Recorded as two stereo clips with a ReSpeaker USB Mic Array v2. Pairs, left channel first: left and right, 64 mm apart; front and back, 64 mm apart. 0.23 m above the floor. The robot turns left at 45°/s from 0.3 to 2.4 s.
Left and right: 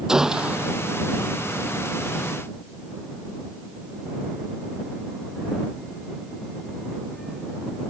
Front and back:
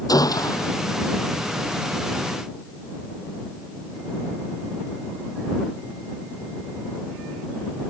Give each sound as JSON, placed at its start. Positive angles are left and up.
{"t": 0.1, "sound": "a gunshot", "azimuth_deg": -10}